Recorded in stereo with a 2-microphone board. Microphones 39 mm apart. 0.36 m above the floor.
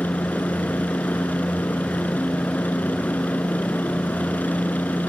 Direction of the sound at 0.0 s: 50° left (ahead or behind).